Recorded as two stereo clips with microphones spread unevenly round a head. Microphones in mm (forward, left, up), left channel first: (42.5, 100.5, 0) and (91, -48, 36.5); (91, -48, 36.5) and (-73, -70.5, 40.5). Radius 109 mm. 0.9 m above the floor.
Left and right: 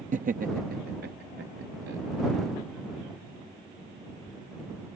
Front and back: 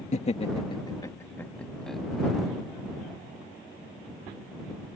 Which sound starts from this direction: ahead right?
Laughter, at 0.1 s.